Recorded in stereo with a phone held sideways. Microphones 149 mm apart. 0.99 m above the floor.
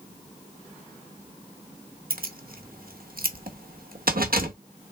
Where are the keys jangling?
75° right (ahead or behind), 0.9 m.